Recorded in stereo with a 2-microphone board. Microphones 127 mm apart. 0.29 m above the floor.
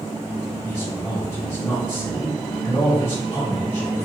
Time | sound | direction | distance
0.6 | a man speaking | 25° left (ahead or behind) | 1.5 m